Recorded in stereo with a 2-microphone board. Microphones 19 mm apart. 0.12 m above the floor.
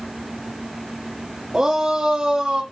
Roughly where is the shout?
Right.